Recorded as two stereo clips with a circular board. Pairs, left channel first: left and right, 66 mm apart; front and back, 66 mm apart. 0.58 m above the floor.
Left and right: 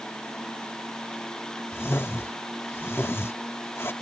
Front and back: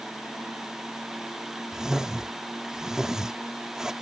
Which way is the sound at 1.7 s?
105° left.